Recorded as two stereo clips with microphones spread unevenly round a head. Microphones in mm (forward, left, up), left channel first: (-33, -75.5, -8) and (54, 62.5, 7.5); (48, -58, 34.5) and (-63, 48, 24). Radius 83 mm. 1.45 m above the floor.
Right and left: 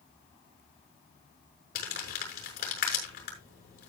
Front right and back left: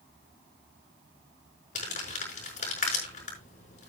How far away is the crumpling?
About 6 m.